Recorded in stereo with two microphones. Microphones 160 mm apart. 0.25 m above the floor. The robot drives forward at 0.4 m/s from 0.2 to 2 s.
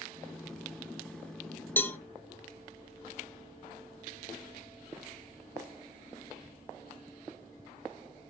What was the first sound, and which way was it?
A cowbell, 15° left (ahead or behind).